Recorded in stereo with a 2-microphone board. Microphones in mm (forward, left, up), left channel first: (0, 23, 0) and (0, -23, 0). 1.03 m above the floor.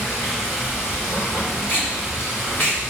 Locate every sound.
0.0 s running water: 60° left (ahead or behind), 3.5 m
1.7 s tape being pulled: 50° left (ahead or behind), 1.7 m